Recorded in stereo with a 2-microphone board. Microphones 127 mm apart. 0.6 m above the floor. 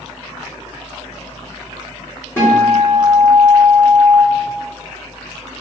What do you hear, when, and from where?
2.4 s a guitar: 20° left (ahead or behind), 1.6 m